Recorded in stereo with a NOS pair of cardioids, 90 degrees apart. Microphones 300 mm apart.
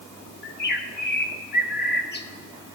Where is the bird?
35° left, 1.0 m.